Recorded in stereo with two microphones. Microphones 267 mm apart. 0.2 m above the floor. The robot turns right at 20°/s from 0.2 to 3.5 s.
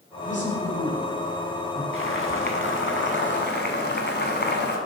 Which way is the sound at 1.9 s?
90° left.